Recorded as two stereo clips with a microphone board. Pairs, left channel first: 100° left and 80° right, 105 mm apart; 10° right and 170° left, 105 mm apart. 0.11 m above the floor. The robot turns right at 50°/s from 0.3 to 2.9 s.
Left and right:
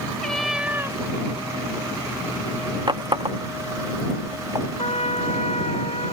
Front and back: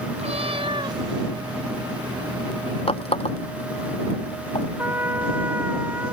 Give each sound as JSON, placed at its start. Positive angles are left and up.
{"t": 0.2, "sound": "a cat meowing", "azimuth_deg": -175}
{"t": 2.9, "sound": "a running tap", "azimuth_deg": -35}
{"t": 4.8, "sound": "a trumpet", "azimuth_deg": 100}